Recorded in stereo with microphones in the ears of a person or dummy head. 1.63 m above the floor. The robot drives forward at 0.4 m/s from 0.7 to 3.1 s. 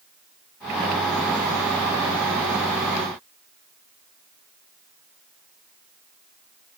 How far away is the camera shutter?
No camera shutter in this recording.